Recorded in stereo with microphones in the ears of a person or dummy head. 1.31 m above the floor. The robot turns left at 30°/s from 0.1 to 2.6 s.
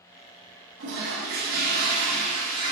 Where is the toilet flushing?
100° right, 1.3 m; by 2.7 s 150° right, 1.3 m.